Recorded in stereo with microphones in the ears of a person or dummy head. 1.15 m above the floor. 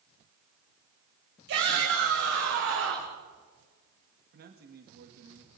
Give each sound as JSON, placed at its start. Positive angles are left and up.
{"t": 1.5, "sound": "a shout", "side_deg": -65, "distance_m": 4.5}
{"t": 4.3, "sound": "a man speaking", "side_deg": -50, "distance_m": 1.9}